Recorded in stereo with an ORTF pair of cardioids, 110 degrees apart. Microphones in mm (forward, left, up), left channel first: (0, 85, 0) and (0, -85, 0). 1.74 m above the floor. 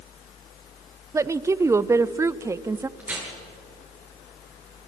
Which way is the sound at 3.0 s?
10° right.